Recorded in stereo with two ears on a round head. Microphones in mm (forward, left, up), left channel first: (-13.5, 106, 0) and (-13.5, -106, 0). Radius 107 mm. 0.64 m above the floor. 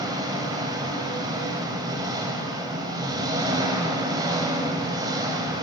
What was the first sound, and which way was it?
An engine running, 20° right (ahead or behind).